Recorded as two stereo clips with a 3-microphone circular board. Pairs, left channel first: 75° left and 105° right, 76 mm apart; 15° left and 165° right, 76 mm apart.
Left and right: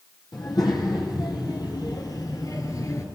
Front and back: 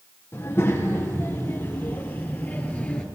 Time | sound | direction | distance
0.3 | a child speaking | 70° left | 4 m